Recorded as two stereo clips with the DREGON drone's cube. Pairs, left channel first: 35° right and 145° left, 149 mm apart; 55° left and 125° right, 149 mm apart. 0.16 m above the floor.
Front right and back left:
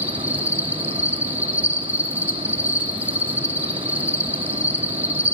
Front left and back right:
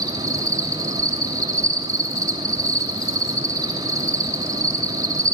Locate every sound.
0.0 s an insect: 150° right, 1.0 m